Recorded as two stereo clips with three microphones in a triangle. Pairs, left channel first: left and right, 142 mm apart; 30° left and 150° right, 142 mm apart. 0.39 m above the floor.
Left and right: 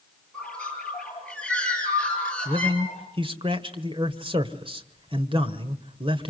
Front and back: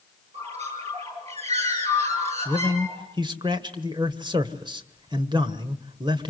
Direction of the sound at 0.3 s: 170° left.